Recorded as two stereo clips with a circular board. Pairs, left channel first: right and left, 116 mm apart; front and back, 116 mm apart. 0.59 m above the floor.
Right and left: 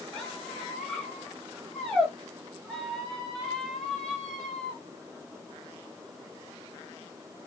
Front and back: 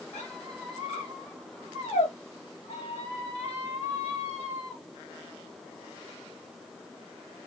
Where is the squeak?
5° right, 1.1 m.